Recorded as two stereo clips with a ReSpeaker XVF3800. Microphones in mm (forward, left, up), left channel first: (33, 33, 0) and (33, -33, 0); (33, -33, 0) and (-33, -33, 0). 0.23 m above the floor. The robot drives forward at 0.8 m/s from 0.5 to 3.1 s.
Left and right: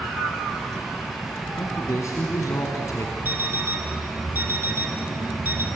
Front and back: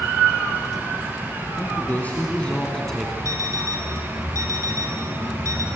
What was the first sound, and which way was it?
A man speaking, 55° left.